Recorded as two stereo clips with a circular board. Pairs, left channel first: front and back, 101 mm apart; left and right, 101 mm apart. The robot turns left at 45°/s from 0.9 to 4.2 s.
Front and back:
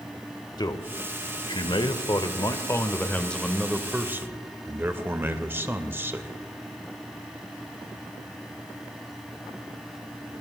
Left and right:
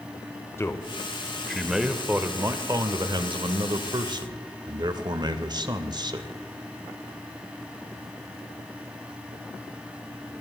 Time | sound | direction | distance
0.6 | a man speaking | 30° left | 1.1 m